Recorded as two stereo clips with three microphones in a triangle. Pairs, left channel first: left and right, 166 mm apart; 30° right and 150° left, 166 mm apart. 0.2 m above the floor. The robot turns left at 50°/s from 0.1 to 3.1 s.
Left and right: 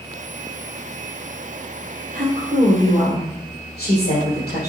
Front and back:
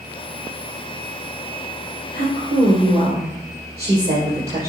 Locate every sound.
2.1 s a woman speaking: 145° left, 3.5 m; by 4.7 s 100° left, 3.5 m